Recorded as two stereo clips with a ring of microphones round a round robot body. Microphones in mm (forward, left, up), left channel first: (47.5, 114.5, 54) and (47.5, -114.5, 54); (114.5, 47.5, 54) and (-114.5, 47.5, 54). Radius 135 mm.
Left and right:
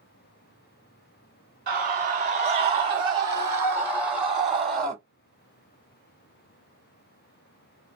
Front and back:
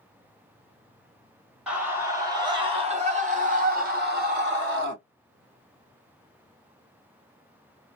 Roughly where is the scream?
Right.